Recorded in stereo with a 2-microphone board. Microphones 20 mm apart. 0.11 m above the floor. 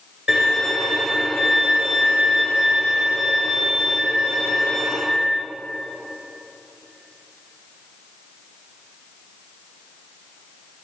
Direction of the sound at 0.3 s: 30° right (ahead or behind).